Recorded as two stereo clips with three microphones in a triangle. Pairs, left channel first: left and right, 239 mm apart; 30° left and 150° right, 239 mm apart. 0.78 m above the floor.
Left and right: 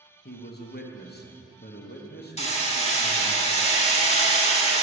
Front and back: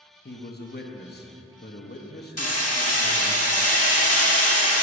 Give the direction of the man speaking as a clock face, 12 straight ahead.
10 o'clock.